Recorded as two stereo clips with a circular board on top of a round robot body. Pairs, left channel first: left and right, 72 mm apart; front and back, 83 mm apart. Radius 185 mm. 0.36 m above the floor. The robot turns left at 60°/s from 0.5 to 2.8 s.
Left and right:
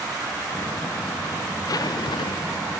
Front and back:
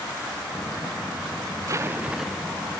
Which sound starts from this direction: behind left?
A zipper, at 1.7 s.